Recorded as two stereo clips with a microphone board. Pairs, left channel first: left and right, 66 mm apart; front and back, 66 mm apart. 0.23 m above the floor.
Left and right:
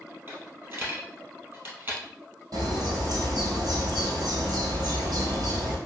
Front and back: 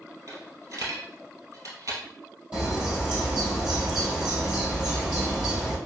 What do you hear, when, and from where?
0.3 s a dropped coin: 140° right, 2 m
2.5 s a bird: 105° right, 3 m